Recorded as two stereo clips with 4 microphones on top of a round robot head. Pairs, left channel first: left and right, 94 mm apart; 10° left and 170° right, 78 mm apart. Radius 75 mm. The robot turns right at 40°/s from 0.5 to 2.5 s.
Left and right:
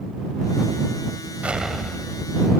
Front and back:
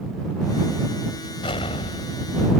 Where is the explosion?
15° right; by 2.5 s 30° left.